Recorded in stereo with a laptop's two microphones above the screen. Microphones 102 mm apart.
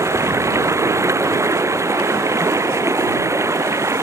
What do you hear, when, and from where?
0.0 s running water: 30° right (ahead or behind)